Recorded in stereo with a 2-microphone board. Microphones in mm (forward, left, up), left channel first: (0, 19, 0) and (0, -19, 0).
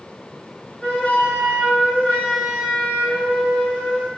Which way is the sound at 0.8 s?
35° left (ahead or behind).